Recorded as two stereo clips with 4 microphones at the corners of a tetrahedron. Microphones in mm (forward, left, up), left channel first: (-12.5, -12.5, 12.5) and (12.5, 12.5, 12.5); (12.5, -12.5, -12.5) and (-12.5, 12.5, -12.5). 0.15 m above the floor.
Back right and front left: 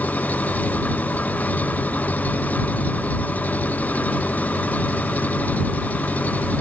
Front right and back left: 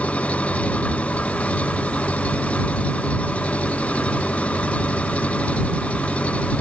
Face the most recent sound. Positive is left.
turn(degrees=-95)